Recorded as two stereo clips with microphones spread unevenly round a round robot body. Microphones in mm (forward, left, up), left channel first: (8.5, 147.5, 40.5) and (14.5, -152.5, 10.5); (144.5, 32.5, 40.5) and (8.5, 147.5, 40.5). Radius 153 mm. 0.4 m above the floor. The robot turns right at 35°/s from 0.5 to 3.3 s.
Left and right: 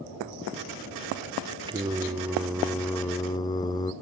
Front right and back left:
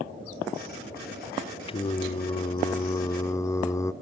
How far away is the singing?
About 1.0 m.